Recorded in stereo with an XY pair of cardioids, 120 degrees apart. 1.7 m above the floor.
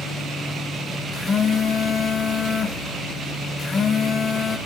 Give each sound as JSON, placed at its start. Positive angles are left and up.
{"t": 1.1, "sound": "a phone buzzing", "azimuth_deg": 35, "distance_m": 2.5}